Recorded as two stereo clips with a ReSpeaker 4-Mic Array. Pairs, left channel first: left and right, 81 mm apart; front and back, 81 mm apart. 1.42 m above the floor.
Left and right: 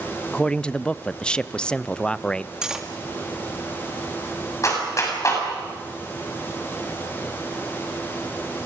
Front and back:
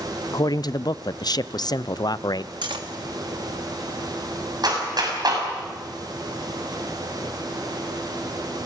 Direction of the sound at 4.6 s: 140° left.